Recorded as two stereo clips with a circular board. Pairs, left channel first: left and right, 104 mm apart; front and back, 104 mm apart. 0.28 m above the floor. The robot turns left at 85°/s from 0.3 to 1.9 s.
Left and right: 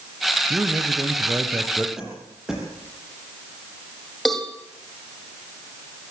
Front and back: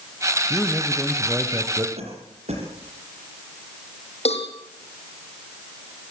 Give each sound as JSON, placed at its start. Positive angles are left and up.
{"t": 0.5, "sound": "a man speaking", "azimuth_deg": -45, "distance_m": 1.6}
{"t": 2.0, "sound": "a cough", "azimuth_deg": -175, "distance_m": 8.5}
{"t": 4.2, "sound": "a cowbell", "azimuth_deg": 0, "distance_m": 6.5}